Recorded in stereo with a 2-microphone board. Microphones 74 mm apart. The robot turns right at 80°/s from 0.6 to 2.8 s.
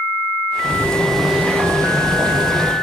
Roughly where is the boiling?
Behind left.